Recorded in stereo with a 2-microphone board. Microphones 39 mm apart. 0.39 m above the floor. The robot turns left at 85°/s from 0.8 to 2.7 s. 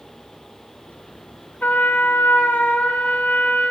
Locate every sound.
1.6 s a trumpet: 130° left, 1.0 m; by 3.7 s 40° left, 1.0 m